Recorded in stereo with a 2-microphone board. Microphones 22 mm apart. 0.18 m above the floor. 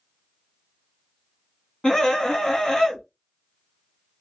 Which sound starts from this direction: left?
A scream, at 1.8 s.